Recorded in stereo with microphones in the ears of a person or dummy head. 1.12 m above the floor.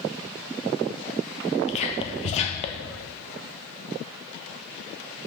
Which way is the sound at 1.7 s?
35° left (ahead or behind).